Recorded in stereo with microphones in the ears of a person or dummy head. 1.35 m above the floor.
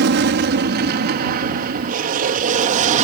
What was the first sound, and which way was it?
An aircraft, 60° right (ahead or behind).